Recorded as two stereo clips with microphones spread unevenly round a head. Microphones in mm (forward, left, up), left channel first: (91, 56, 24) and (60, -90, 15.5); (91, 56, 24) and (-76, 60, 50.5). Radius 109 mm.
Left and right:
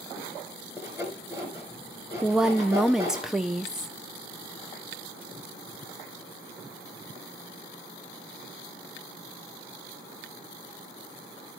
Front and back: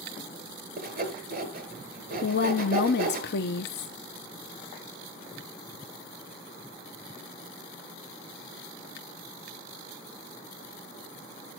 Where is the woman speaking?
15° right, 0.7 m.